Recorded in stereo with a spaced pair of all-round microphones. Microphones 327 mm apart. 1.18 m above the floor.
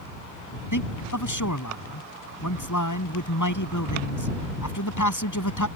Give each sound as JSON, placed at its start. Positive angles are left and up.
{"t": 0.7, "sound": "a man speaking", "side_deg": 65}